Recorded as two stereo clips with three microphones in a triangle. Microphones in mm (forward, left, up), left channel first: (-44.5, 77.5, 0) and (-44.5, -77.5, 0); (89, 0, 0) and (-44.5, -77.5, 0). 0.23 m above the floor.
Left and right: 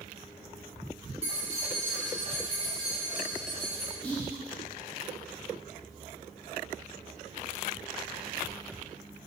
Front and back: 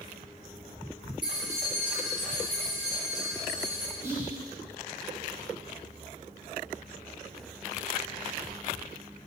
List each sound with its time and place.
1.2 s keys jangling: 110° right, 0.9 m; by 3.9 s 25° right, 1.8 m
4.0 s whispering: 160° left, 1.0 m